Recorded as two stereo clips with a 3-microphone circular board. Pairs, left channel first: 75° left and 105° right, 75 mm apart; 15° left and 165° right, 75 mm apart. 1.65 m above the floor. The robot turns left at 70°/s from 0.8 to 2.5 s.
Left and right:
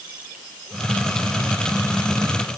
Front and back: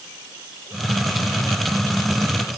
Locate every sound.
Only background noise.